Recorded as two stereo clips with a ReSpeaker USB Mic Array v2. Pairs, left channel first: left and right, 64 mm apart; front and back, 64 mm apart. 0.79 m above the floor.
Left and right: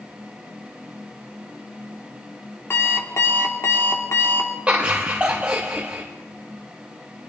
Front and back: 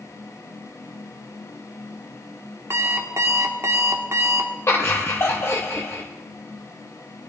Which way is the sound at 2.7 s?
140° left.